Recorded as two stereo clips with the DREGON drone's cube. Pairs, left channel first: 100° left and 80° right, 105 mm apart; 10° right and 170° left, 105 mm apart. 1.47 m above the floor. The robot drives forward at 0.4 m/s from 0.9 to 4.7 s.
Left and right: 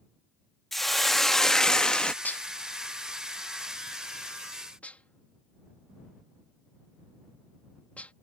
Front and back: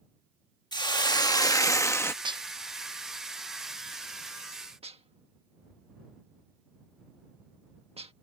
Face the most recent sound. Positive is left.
turn(degrees=175)